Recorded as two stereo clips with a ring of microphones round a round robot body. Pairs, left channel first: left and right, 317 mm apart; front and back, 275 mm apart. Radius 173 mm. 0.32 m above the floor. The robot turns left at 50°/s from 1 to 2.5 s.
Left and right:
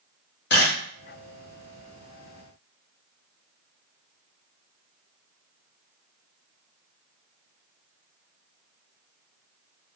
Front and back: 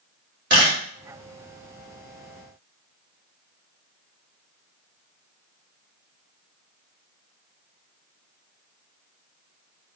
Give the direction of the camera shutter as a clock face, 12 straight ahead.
7 o'clock.